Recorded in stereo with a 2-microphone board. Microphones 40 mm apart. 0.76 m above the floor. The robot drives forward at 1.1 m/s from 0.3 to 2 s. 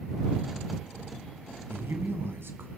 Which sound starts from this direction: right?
A man speaking, at 1.7 s.